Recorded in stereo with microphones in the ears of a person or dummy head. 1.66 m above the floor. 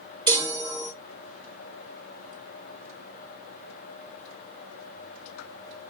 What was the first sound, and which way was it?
A chime, 20° right (ahead or behind).